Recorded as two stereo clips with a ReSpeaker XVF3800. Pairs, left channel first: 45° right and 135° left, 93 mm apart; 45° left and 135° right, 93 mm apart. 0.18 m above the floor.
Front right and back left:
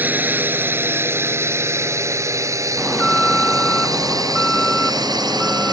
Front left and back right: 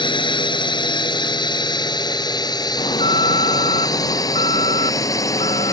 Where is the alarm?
40° left.